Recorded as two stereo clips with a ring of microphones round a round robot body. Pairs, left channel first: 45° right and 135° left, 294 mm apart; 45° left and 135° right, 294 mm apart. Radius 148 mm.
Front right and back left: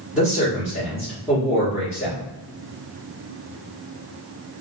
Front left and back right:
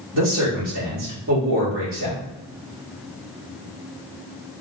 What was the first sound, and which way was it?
A man speaking, 140° right.